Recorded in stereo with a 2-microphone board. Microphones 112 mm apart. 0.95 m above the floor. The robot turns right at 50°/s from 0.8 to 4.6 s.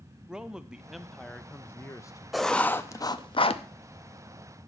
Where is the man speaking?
10° right, 0.6 m; by 2.2 s 60° left, 0.6 m.